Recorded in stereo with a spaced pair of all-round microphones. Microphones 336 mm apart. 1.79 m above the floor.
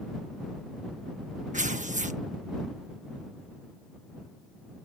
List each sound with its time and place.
1.5 s tearing paper: 20° right (ahead or behind)